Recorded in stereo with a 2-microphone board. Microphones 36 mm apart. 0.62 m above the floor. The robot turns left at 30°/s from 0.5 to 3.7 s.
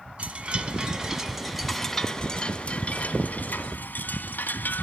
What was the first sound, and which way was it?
A chime, 145° right.